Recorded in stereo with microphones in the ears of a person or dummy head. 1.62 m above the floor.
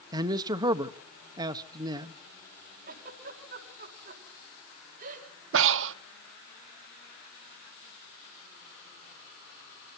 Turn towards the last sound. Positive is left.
turn(degrees=-75)  # may be behind; listen again after turning